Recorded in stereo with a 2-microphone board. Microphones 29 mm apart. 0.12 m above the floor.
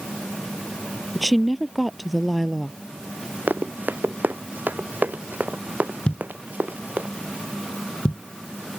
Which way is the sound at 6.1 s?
40° left (ahead or behind).